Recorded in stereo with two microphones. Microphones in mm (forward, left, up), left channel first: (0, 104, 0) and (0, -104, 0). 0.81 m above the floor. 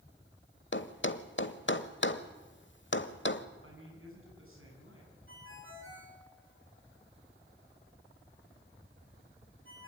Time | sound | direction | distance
0.7 | a thud | 65° left (ahead or behind) | 1.1 m
3.6 | a man speaking | 85° right | 9 m
5.3 | a ringtone | 80° right | 8 m